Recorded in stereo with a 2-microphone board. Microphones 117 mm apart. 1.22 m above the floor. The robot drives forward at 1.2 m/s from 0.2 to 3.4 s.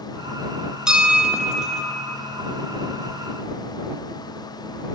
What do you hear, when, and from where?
0.9 s a bell: 5° right (ahead or behind), 0.6 m